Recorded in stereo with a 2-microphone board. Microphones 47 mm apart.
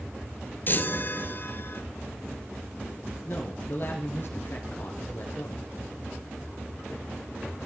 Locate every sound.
0.7 s a chime: 40° left (ahead or behind), 1.3 m
3.2 s a man speaking: 50° left (ahead or behind), 2 m